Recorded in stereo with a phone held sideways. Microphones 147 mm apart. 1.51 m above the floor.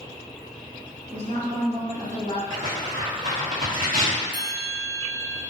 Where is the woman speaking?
70° right (ahead or behind), 1.0 m.